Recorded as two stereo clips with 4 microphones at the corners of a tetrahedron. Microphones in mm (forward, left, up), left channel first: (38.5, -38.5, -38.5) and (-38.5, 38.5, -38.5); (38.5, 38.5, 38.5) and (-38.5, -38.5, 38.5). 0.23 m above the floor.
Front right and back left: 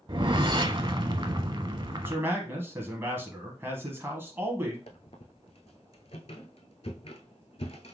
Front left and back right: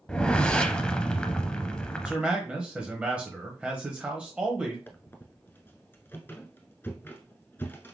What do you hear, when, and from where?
0.1 s a whoosh: 125° left, 0.5 m
2.0 s a man speaking: 160° left, 1.0 m
4.9 s a squeak: 25° right, 0.8 m